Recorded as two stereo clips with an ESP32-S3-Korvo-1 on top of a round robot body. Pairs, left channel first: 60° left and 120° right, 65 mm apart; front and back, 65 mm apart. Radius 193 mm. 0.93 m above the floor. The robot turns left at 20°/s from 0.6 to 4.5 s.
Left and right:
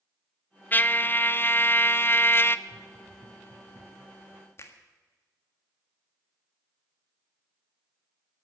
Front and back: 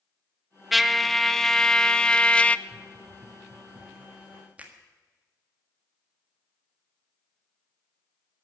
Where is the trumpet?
95° left, 0.8 m; by 2.6 s 60° left, 0.8 m.